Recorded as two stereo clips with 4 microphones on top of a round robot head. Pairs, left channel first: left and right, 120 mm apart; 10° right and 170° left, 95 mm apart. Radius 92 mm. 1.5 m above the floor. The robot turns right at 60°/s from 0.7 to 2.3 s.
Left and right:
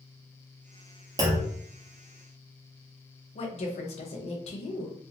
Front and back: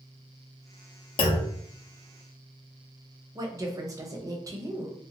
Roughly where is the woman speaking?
Behind left.